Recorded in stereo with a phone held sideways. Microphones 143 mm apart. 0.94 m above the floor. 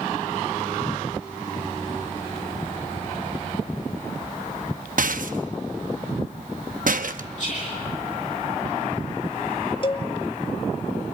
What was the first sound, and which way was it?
A rattle, 70° right (ahead or behind).